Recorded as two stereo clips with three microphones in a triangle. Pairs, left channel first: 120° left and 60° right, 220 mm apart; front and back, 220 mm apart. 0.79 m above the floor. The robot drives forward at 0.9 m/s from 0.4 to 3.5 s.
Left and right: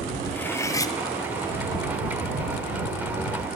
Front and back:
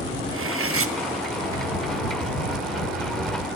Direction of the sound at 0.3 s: 160° right.